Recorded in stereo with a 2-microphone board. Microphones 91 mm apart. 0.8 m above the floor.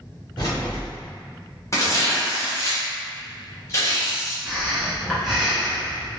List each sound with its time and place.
0.4 s keys jangling: 60° left (ahead or behind), 1.6 m
1.7 s tearing paper: 35° left (ahead or behind), 1.2 m
4.5 s breathing: centre (ahead or behind), 1.2 m